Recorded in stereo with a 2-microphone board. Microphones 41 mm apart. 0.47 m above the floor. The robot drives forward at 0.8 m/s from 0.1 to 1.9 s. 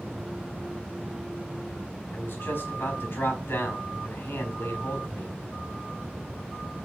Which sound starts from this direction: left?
A man speaking, at 2.1 s.